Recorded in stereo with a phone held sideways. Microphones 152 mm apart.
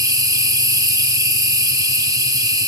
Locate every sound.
0.0 s an insect: 25° right (ahead or behind), 1.3 m